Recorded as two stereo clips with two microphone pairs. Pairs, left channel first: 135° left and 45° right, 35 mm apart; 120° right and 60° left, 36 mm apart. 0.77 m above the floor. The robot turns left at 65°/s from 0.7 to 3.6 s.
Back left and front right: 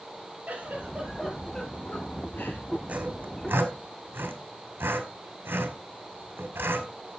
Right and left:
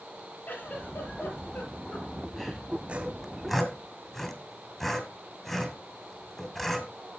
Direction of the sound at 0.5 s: 90° right.